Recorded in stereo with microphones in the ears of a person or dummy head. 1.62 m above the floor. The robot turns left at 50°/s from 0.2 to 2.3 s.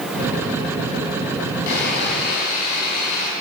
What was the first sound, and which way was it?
Sawing, 80° left.